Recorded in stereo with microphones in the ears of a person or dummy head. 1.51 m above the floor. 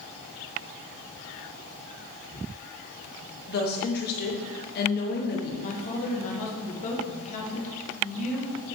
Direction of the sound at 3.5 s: 45° left (ahead or behind).